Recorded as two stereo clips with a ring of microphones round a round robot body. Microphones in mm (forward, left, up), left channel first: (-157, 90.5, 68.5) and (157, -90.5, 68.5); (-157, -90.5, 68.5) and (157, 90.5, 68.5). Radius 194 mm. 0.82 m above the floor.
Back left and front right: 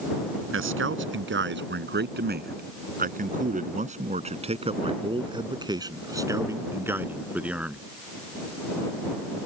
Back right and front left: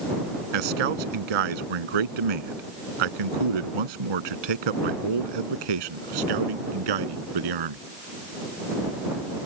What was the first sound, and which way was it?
A man speaking, 30° left.